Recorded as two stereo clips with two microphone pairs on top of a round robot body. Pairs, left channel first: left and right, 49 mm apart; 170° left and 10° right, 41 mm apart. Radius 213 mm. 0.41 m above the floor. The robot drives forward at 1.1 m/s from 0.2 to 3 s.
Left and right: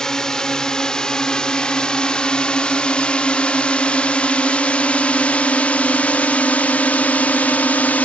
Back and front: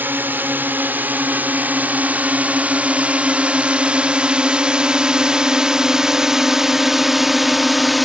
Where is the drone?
20° left; by 8.1 s 85° left.